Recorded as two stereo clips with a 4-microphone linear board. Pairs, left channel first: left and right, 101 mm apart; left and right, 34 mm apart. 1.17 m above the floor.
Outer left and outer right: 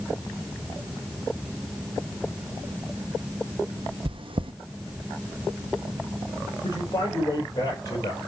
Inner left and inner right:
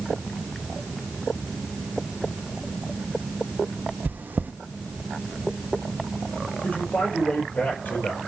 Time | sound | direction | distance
4.0 | chewing | 60° right (ahead or behind) | 0.6 m
6.6 | a man speaking | 40° left (ahead or behind) | 4.5 m